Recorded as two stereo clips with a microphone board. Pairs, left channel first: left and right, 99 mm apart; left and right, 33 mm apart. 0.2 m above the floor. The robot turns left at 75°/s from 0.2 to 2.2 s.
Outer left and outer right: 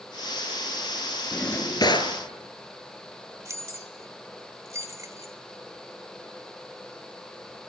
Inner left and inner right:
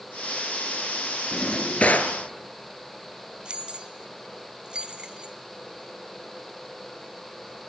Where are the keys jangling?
30° right (ahead or behind), 1.3 m.